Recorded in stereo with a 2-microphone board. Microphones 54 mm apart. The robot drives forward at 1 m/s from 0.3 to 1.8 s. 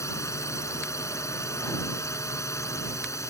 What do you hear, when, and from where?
0.0 s a drone: 65° left (ahead or behind)